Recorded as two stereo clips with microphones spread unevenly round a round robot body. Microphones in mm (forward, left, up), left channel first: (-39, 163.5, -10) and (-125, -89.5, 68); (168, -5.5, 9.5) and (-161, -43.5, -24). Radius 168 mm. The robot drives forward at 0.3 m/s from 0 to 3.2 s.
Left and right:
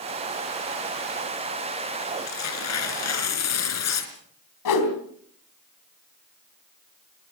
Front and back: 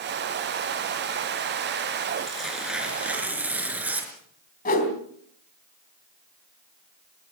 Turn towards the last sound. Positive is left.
turn(degrees=70)